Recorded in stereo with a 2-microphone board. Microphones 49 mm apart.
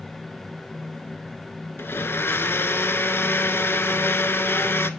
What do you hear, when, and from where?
1.8 s a blender: 55° left (ahead or behind), 0.5 m